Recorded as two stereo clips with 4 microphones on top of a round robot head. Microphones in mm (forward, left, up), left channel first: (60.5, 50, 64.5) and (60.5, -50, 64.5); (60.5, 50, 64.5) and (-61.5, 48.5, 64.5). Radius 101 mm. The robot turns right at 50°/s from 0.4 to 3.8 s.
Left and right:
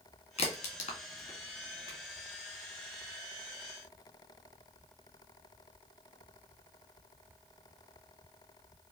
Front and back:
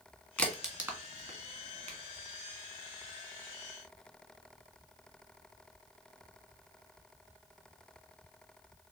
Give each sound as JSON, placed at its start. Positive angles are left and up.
{"t": 0.4, "sound": "a crack", "azimuth_deg": 85, "distance_m": 1.9}